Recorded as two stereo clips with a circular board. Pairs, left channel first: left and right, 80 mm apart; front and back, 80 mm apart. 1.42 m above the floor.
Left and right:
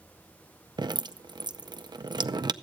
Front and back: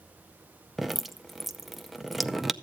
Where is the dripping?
95° right, 0.5 m.